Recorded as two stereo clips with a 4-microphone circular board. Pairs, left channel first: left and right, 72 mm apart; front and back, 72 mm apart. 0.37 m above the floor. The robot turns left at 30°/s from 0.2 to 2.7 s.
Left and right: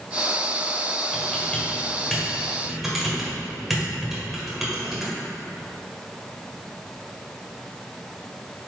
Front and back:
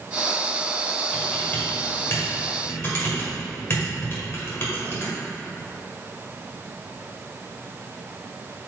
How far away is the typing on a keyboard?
About 1.8 m.